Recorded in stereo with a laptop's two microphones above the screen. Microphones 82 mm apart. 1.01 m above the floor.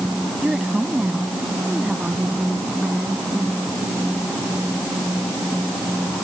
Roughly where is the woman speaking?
Centre.